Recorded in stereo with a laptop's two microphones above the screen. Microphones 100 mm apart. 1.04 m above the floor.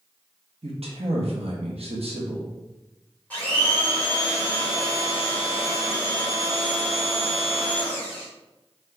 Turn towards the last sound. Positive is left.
turn(degrees=15)  # may be behind; listen again after turning